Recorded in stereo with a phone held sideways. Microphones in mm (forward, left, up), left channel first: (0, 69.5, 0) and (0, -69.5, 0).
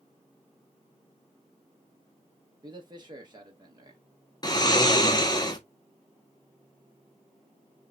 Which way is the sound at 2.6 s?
30° right (ahead or behind).